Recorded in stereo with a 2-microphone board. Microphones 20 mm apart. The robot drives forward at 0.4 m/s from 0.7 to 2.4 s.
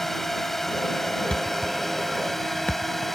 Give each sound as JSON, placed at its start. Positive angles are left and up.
{"t": 0.0, "sound": "a drone", "side_deg": 15}
{"t": 1.3, "sound": "a thud", "side_deg": 60}